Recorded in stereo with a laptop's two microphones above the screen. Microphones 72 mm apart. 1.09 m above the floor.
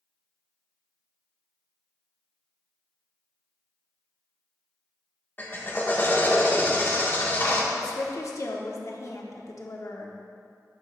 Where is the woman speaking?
50° left (ahead or behind), 1.0 m.